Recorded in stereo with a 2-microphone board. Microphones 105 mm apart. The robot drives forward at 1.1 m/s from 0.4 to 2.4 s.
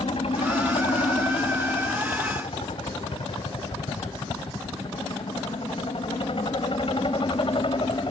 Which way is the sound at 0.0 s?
65° left (ahead or behind).